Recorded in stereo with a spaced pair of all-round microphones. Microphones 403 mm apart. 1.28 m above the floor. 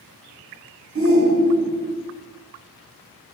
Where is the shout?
35° right (ahead or behind), 1.0 m.